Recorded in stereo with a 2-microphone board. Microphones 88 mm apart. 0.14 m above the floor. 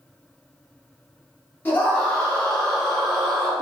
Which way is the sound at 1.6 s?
20° left (ahead or behind).